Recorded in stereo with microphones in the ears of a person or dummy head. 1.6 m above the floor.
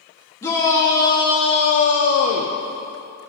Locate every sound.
0.4 s a shout: 15° left (ahead or behind), 2 m; by 2.6 s 30° left (ahead or behind), 0.9 m